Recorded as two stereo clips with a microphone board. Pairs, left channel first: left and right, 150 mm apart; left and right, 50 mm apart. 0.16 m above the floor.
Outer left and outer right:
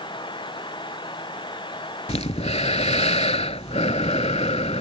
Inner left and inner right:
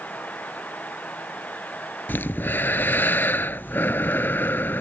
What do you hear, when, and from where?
2.1 s breathing: 50° left (ahead or behind)